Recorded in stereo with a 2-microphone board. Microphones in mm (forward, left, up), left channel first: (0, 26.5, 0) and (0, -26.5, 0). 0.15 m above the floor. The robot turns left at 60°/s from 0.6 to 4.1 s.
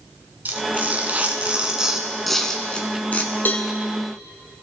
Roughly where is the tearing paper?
Right.